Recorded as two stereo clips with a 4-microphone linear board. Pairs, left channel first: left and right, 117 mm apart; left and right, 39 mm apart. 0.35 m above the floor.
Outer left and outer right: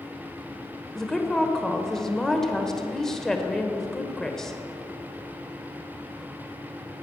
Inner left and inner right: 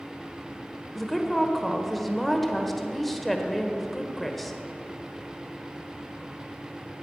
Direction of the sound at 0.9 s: 5° left (ahead or behind).